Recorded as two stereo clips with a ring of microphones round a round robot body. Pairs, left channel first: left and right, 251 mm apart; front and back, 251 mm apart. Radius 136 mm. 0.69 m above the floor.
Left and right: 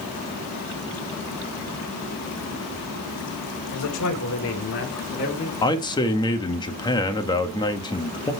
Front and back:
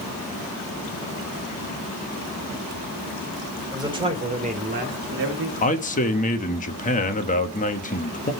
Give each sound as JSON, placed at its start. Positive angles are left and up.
{"t": 3.7, "sound": "a man speaking", "azimuth_deg": 105, "distance_m": 2.5}
{"t": 5.6, "sound": "a man speaking", "azimuth_deg": 30, "distance_m": 1.2}